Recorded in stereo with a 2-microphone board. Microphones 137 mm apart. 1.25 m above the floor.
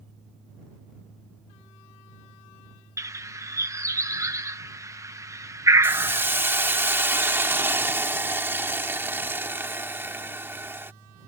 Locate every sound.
3.0 s a bird: 20° right (ahead or behind)
5.8 s a hiss: 15° right (ahead or behind)